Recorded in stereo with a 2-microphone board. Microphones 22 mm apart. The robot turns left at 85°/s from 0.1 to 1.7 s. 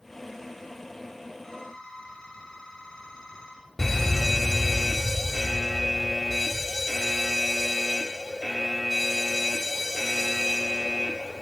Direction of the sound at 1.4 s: 20° left (ahead or behind).